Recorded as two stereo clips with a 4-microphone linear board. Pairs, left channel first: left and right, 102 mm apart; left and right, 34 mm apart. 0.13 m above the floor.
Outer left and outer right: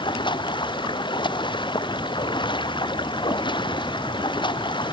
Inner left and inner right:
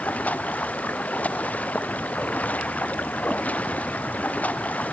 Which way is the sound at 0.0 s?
45° left (ahead or behind).